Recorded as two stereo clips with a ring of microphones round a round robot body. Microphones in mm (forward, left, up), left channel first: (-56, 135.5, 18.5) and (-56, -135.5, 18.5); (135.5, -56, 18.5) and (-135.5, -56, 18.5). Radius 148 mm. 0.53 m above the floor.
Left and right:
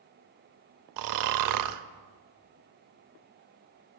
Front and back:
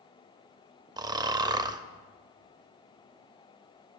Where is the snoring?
105° right, 0.5 m.